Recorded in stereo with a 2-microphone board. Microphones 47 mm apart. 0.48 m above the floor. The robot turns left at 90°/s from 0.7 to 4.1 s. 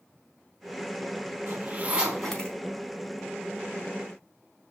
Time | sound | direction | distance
1.5 | a zipper | 65° right (ahead or behind) | 4 m